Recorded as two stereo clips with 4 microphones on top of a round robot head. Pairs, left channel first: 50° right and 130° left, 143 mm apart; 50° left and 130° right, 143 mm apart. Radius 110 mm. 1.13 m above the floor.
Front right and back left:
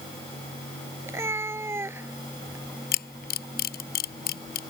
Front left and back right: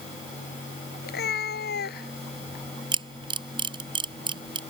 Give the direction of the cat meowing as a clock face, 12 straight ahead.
10 o'clock.